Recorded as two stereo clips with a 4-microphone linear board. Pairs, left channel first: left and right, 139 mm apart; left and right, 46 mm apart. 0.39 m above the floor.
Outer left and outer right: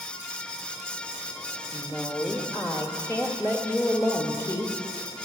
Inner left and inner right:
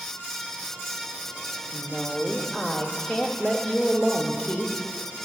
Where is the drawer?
I don't hear a drawer.